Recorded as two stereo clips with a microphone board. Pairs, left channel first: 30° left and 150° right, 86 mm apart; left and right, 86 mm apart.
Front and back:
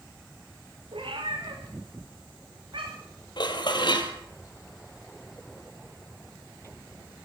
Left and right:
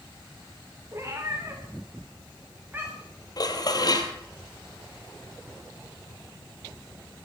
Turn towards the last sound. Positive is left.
turn(degrees=55)